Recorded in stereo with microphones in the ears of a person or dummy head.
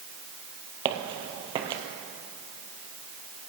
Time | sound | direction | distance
0.8 | footsteps | 30° right (ahead or behind) | 1.9 m